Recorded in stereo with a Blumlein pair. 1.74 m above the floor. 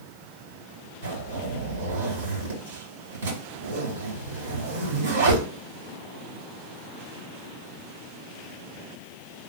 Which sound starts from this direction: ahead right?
A zipper, at 1.0 s.